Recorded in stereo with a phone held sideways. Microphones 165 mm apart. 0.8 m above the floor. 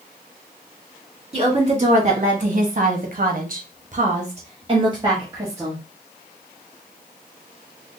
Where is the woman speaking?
40° right (ahead or behind), 1.5 m; by 5.8 s 15° right (ahead or behind), 1.2 m.